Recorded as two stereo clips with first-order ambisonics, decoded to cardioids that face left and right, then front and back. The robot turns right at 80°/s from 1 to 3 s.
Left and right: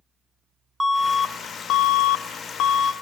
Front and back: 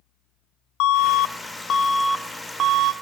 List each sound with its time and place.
0.8 s an alarm: 5° right, 0.9 m; by 2.9 s 150° left, 0.9 m